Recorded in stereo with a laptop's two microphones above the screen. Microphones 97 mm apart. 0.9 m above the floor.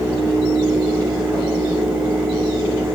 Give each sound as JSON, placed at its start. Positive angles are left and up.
{"t": 0.0, "sound": "a fan", "side_deg": 5, "distance_m": 1.3}